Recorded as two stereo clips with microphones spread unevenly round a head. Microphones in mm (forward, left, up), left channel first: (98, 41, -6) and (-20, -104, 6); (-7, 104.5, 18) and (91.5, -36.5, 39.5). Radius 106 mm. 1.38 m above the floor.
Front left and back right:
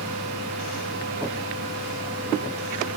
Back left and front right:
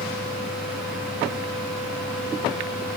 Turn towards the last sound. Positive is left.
turn(degrees=-145)